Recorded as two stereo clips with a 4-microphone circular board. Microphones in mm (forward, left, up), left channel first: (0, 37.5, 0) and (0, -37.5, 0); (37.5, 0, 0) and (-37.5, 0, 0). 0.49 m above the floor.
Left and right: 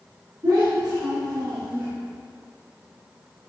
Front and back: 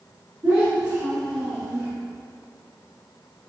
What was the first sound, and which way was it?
A child speaking, 125° right.